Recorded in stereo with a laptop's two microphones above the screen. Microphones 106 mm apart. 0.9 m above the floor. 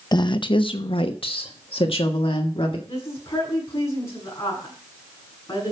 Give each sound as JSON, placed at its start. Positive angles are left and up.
{"t": 0.1, "sound": "a woman speaking", "side_deg": 40, "distance_m": 0.7}
{"t": 2.9, "sound": "a woman speaking", "side_deg": 30, "distance_m": 7.0}